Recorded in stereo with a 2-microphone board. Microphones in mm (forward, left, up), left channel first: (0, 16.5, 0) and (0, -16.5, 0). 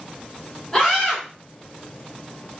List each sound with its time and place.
0.7 s a scream: centre (ahead or behind), 2.0 m